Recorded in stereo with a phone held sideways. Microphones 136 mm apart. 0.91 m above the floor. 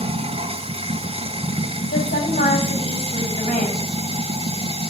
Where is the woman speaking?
85° left, 6.5 m.